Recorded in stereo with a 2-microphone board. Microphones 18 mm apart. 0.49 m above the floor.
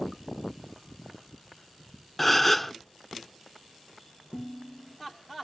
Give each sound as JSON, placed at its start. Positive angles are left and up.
{"t": 2.2, "sound": "a gasp", "side_deg": 10, "distance_m": 0.6}
{"t": 4.3, "sound": "dishes clattering", "side_deg": -75, "distance_m": 9.0}